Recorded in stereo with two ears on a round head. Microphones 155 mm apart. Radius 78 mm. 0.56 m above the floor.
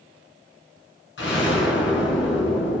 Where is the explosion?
80° left, 3 m.